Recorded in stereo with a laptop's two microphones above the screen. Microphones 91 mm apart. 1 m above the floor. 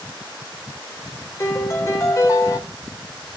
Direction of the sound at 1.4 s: 35° left (ahead or behind).